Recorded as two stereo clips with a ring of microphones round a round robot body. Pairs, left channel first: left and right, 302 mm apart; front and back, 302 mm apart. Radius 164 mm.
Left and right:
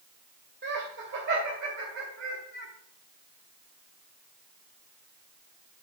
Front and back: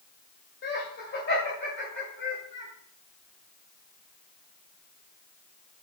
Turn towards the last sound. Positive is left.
turn(degrees=-50)